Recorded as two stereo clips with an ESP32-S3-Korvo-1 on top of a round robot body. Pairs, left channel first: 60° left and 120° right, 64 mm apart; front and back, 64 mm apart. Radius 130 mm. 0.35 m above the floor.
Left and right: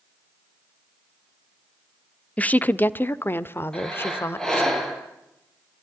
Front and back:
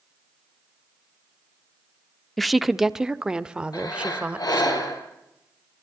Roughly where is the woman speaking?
Left.